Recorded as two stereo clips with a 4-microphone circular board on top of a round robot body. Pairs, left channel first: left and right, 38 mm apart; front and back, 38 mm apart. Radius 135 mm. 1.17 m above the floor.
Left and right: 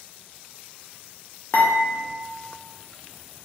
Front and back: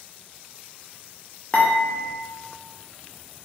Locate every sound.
1.5 s dishes clattering: 60° left, 0.5 m